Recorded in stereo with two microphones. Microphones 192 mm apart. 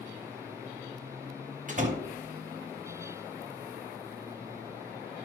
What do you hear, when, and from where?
1.7 s a door slam: 45° right (ahead or behind), 1.5 m